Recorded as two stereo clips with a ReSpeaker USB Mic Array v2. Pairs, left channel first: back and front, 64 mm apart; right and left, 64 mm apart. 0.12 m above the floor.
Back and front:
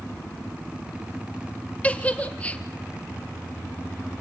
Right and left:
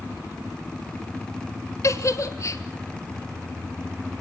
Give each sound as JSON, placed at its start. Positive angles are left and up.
{"t": 1.8, "sound": "a giggle", "azimuth_deg": -115, "distance_m": 1.2}